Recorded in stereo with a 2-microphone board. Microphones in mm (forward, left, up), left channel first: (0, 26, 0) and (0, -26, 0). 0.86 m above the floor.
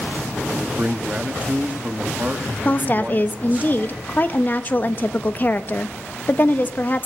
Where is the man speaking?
30° right (ahead or behind), 1.9 m.